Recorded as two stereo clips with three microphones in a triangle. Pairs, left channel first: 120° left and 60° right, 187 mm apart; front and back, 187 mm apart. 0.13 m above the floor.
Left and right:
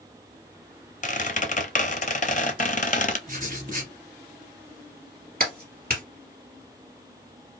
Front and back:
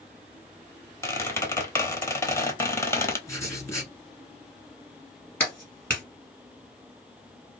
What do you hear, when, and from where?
1.0 s a squeak: 75° left, 0.6 m
3.3 s writing: 70° right, 1.4 m
5.4 s a clap: 80° right, 2 m